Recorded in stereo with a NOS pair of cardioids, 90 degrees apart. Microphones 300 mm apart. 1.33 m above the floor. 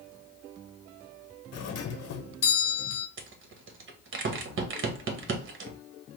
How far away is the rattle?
About 1.1 m.